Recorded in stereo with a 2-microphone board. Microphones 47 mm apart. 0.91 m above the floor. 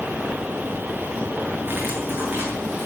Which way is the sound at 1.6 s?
45° right (ahead or behind).